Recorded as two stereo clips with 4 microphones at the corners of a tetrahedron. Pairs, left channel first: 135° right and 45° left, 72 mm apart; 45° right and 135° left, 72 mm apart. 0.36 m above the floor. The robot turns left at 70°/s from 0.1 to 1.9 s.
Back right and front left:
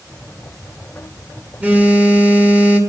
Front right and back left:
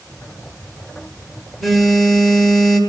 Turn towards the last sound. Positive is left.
turn(degrees=25)